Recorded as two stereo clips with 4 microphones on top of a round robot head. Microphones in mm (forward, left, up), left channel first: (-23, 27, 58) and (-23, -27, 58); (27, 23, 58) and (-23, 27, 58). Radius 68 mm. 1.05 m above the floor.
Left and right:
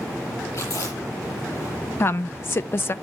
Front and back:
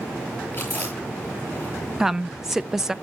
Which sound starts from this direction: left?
A woman speaking, at 2.0 s.